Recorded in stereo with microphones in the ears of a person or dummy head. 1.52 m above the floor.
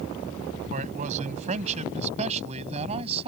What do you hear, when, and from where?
0.7 s a man speaking: 40° right (ahead or behind); by 3.3 s 35° right (ahead or behind)